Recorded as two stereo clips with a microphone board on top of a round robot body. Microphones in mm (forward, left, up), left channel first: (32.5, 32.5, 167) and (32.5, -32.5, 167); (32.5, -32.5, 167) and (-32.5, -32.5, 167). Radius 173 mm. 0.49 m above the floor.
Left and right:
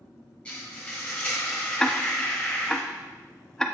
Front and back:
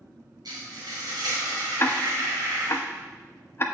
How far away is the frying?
About 3 m.